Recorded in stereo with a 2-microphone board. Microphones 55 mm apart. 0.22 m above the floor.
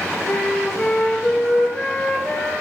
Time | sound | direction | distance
0.3 | a flute | 10° left (ahead or behind) | 4 m